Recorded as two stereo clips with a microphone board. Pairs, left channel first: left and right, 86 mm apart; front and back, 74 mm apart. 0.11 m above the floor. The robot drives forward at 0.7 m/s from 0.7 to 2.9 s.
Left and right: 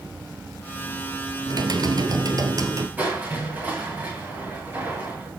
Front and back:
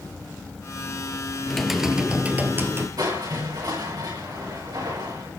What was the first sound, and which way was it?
Typing on a keyboard, 85° right.